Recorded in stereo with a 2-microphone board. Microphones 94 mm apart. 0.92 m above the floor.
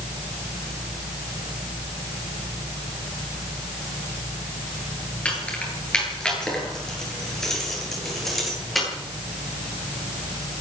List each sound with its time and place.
5.2 s keys jangling: 15° left (ahead or behind), 9.5 m; by 8.9 s centre (ahead or behind), 10.5 m